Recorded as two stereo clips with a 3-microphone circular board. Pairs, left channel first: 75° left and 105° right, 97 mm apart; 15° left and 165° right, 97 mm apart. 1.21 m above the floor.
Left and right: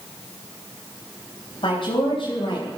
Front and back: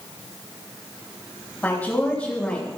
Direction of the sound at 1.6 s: 85° left.